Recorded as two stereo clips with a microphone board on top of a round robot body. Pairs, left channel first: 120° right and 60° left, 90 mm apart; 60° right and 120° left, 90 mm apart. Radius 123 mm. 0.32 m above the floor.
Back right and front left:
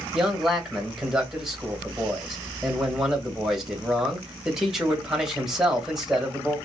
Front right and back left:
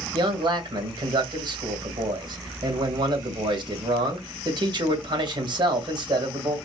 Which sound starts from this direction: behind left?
A man speaking, at 0.1 s.